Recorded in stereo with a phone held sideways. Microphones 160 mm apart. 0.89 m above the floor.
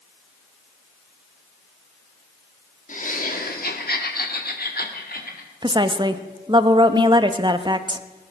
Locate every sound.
2.9 s laughter: 55° left (ahead or behind), 1.8 m; by 5.5 s 70° left (ahead or behind), 3 m
5.6 s a woman speaking: 30° right (ahead or behind), 0.9 m